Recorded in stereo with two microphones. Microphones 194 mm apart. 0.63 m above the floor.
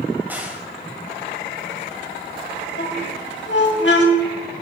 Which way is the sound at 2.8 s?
65° left (ahead or behind).